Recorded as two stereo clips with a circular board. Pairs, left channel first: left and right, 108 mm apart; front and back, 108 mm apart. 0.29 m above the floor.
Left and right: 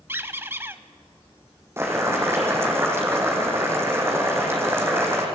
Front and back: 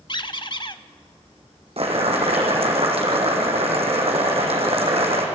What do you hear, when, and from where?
0.1 s a squeak: 25° right, 0.6 m
1.8 s boiling: 155° right, 3.5 m